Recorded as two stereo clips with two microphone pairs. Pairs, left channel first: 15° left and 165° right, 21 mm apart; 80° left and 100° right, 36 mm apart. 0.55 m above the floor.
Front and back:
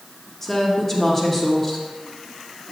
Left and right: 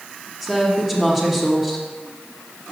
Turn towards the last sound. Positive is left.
turn(degrees=-25)